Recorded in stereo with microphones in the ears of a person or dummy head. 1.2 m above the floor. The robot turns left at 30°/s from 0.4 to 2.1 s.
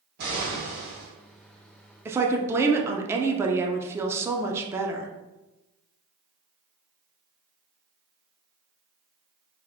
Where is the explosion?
55° right (ahead or behind), 1.8 m; by 1.1 s 65° right (ahead or behind), 1.8 m.